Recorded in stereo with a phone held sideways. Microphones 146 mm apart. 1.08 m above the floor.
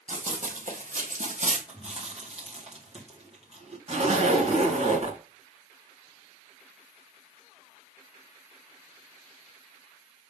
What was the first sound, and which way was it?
Running footsteps, 60° right (ahead or behind).